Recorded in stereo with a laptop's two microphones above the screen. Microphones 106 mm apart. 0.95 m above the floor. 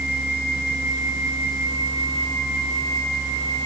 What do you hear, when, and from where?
0.0 s a fan: 15° left (ahead or behind)